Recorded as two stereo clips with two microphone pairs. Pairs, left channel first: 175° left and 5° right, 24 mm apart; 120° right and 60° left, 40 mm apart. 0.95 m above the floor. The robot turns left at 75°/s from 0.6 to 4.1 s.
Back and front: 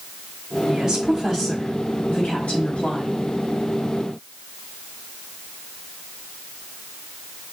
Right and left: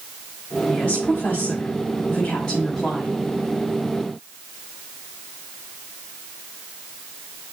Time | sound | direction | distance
0.7 | a woman speaking | 50° right | 4.5 m